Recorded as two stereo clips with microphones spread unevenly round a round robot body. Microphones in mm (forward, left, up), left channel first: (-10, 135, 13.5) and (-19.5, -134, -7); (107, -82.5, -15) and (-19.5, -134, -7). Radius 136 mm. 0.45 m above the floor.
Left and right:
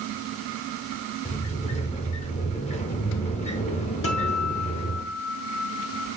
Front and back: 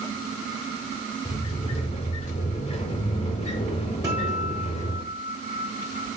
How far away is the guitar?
About 1.4 m.